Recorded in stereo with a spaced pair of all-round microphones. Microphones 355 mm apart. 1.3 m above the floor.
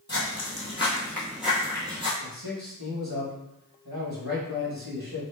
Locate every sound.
0.1 s footsteps: 30° left (ahead or behind), 1.4 m; by 2.1 s 15° right (ahead or behind), 1.5 m
2.2 s a man speaking: 85° right, 1.2 m